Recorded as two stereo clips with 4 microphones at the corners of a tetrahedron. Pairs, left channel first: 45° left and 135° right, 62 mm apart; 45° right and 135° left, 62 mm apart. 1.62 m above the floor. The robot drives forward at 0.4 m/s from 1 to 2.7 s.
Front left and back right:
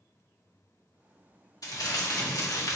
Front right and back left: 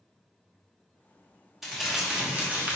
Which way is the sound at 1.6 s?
50° left.